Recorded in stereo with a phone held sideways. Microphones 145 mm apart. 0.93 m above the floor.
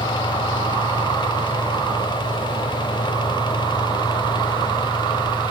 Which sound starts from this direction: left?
A fan, at 0.0 s.